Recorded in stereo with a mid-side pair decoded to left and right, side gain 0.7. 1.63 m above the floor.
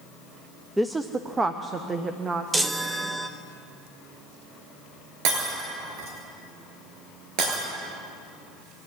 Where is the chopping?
No chopping in this recording.